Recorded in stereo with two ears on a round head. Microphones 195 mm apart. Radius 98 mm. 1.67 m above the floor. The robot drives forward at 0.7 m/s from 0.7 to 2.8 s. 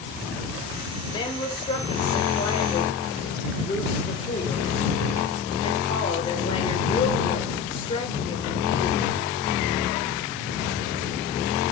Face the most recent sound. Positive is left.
turn(degrees=25)  # may be behind; listen again after turning